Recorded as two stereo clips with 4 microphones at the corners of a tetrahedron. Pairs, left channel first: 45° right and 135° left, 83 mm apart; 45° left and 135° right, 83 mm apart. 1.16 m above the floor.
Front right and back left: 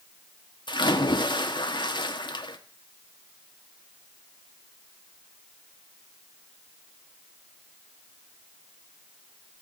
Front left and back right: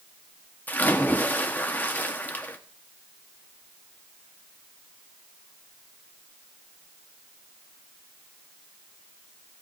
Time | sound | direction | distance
0.7 | a splash | 25° right | 1.3 m